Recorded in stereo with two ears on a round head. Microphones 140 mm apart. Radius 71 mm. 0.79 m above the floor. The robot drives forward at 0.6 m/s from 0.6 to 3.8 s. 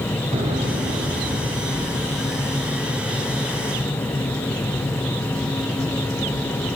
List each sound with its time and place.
0.3 s an explosion: 45° right (ahead or behind), 2.5 m; by 2.5 s 30° right (ahead or behind), 3 m